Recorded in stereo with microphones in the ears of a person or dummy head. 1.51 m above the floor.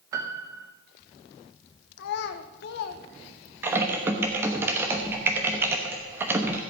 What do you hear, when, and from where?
0.1 s a piano: 20° right (ahead or behind), 0.7 m
2.0 s a child speaking: 65° left (ahead or behind), 0.9 m
3.6 s typing on a keyboard: 15° right (ahead or behind), 1.0 m